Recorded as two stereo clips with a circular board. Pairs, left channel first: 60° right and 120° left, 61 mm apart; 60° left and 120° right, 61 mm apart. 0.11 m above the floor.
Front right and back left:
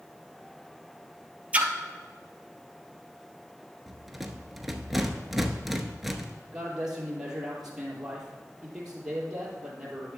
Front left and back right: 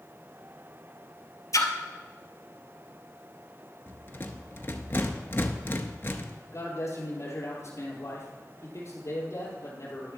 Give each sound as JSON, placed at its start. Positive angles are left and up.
{"t": 1.5, "sound": "a splash", "azimuth_deg": 55, "distance_m": 0.8}
{"t": 3.9, "sound": "a rattle", "azimuth_deg": 35, "distance_m": 0.7}
{"t": 6.5, "sound": "a man speaking", "azimuth_deg": 40, "distance_m": 2.5}